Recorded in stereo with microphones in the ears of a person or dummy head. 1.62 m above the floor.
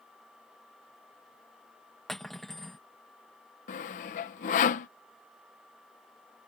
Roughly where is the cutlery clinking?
Centre.